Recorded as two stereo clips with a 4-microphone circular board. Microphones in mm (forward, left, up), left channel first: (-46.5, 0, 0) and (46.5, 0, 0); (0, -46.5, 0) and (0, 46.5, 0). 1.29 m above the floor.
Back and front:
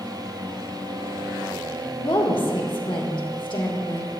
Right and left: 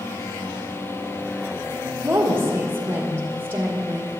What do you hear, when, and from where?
2.0 s a woman speaking: 155° left, 1.7 m